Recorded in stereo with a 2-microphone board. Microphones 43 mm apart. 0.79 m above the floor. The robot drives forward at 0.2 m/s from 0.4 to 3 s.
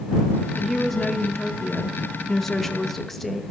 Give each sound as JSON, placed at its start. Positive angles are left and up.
{"t": 0.6, "sound": "a woman speaking", "side_deg": 5, "distance_m": 0.6}